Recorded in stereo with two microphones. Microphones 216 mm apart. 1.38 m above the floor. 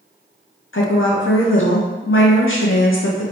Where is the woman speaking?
70° left (ahead or behind), 0.6 m.